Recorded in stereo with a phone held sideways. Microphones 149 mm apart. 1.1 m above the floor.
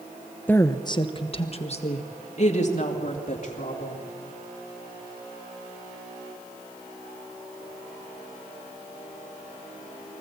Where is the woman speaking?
10° left (ahead or behind), 0.6 m; by 4.0 s 55° left (ahead or behind), 3.5 m.